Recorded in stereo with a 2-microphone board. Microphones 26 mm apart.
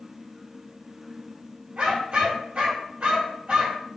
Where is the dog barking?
50° right (ahead or behind), 1.7 m.